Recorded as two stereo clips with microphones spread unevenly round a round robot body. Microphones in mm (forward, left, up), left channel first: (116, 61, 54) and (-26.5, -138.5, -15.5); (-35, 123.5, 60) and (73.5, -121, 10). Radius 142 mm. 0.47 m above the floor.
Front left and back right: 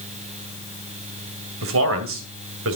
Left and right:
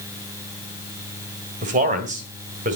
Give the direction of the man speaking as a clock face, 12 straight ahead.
4 o'clock.